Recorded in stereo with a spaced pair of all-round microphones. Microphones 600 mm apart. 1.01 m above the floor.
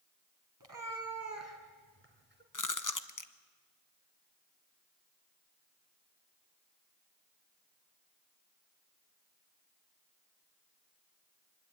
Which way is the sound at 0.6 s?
35° right (ahead or behind).